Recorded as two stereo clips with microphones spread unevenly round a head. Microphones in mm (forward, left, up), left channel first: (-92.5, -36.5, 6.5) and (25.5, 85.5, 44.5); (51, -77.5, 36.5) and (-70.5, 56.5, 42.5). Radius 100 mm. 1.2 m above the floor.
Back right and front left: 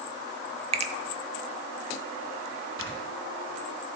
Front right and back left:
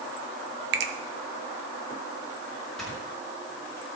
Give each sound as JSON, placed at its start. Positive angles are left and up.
{"t": 0.7, "sound": "a finger snap", "azimuth_deg": 95, "distance_m": 0.9}
{"t": 2.8, "sound": "snoring", "azimuth_deg": 40, "distance_m": 3.5}